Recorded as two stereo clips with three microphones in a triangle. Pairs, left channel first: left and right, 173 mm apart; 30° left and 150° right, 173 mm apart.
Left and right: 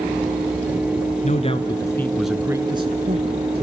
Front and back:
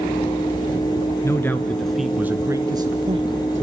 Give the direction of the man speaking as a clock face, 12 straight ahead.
9 o'clock.